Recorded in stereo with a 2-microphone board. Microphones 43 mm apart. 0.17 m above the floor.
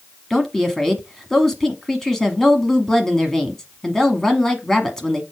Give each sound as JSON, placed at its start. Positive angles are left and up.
{"t": 0.3, "sound": "a woman speaking", "side_deg": 10, "distance_m": 1.1}